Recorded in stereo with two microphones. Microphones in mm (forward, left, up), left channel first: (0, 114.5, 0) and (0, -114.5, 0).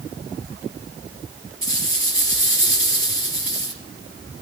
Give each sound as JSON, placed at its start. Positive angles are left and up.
{"t": 1.6, "sound": "a rattle", "side_deg": 60, "distance_m": 4.5}